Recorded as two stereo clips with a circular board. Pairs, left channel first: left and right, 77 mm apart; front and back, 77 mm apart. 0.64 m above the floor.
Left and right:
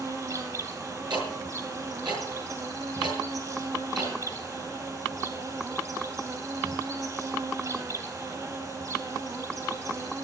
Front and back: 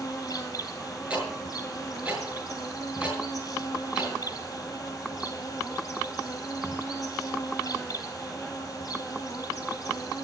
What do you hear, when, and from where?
0.0 s an insect: 45° right, 3 m
1.1 s ticking: 105° right, 6.5 m